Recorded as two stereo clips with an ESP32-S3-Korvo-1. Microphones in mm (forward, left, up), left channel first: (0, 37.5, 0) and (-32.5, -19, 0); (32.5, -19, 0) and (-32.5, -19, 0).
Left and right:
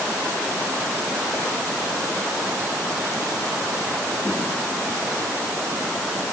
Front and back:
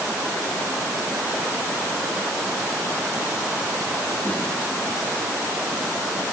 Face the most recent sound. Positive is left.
No sound to turn to.